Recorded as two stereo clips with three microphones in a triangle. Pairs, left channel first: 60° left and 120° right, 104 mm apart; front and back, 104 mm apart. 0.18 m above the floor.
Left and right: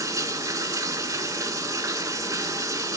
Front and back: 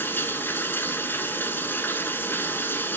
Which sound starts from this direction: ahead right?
Running water, at 0.0 s.